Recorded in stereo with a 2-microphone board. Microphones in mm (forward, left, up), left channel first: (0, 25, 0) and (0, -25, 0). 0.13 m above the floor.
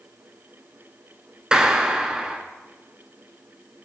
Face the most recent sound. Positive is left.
turn(degrees=-15)  # may be behind; listen again after turning